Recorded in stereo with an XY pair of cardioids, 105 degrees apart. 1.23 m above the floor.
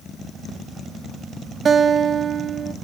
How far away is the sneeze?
I don't hear a sneeze.